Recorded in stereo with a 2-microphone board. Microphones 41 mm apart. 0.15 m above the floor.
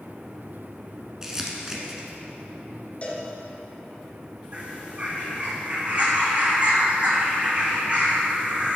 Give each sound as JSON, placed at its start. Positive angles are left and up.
{"t": 1.2, "sound": "crumpling", "side_deg": -15, "distance_m": 1.3}
{"t": 3.0, "sound": "a cowbell", "side_deg": 30, "distance_m": 1.7}
{"t": 4.5, "sound": "a bird", "side_deg": -30, "distance_m": 1.6}